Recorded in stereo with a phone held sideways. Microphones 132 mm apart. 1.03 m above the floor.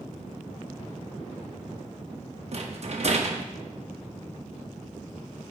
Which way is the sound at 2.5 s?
50° right (ahead or behind).